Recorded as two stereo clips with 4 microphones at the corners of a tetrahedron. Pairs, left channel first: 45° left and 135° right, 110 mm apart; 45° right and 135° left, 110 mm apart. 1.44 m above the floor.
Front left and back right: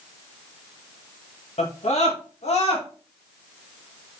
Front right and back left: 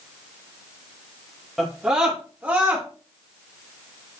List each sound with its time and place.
1.6 s a scream: 50° left, 2 m; by 2.9 s 65° left, 2.5 m